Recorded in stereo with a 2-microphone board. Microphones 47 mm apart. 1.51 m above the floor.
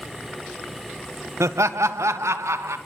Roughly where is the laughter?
Right.